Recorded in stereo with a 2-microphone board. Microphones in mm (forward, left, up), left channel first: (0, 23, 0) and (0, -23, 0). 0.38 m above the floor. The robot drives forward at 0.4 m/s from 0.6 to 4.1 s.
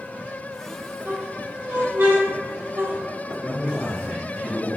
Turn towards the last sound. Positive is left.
turn(degrees=25)  # may be behind; listen again after turning